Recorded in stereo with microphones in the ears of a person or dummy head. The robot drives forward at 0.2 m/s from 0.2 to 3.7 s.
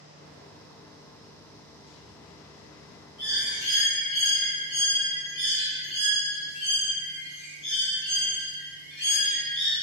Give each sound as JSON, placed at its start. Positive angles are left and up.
{"t": 3.2, "sound": "a bird", "side_deg": 35, "distance_m": 1.8}